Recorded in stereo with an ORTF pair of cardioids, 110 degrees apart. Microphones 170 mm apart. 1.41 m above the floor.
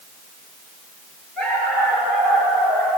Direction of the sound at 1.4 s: 5° left.